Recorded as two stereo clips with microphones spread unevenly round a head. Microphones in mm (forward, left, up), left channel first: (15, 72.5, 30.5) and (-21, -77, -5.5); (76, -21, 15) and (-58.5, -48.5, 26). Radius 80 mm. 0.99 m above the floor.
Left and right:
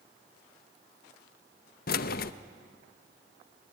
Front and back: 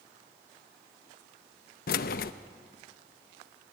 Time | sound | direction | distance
1.9 | keys jangling | 40° left | 0.6 m